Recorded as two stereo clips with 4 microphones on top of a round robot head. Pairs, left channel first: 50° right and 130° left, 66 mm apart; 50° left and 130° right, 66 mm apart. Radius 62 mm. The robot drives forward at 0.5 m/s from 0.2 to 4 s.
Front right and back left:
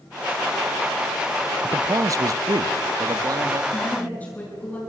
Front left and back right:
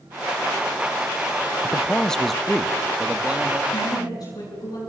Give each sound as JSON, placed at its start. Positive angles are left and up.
{"t": 1.6, "sound": "a man speaking", "azimuth_deg": 105, "distance_m": 0.6}
{"t": 3.7, "sound": "a woman speaking", "azimuth_deg": 20, "distance_m": 9.5}